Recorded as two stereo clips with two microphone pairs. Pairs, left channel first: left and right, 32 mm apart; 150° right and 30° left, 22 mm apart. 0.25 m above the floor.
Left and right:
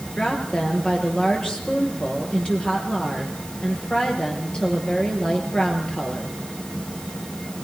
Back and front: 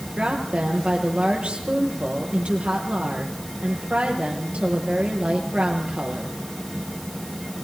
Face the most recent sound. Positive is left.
turn(degrees=35)